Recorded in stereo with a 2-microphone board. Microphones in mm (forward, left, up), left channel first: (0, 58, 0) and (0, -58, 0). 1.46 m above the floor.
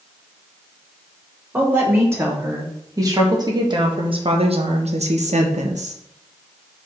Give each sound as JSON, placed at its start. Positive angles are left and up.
{"t": 1.5, "sound": "a woman speaking", "side_deg": -20, "distance_m": 2.5}